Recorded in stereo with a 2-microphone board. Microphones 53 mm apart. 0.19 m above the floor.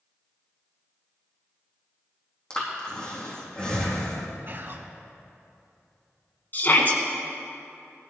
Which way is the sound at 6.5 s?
40° left (ahead or behind).